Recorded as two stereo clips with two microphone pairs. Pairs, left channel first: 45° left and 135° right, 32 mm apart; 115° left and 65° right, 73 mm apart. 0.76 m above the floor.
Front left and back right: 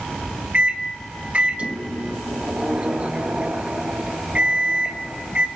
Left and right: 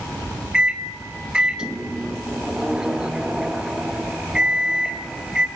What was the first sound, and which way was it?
A microwave, 135° right.